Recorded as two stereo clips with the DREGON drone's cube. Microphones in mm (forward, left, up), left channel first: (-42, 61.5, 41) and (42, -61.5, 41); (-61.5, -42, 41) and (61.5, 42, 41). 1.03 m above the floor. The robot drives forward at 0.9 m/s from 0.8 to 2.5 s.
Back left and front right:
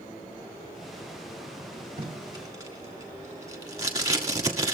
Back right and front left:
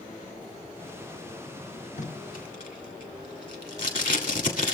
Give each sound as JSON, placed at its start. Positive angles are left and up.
{"t": 2.0, "sound": "tape being pulled", "azimuth_deg": -105, "distance_m": 1.3}